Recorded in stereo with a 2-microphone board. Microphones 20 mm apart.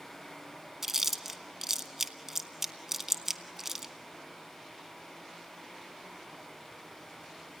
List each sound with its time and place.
0.8 s chewing: 20° right (ahead or behind), 0.9 m